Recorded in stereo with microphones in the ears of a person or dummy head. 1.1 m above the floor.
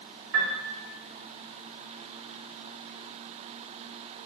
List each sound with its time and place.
0.3 s a piano: 80° right, 3 m